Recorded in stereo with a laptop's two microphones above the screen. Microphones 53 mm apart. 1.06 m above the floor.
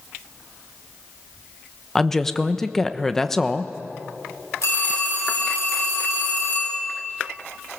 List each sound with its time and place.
1.9 s a woman speaking: 10° left (ahead or behind), 1.0 m
4.6 s a phone ringing: 75° left (ahead or behind), 6.5 m